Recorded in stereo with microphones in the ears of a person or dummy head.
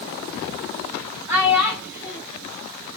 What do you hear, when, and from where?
1.3 s a child speaking: 15° right (ahead or behind), 4 m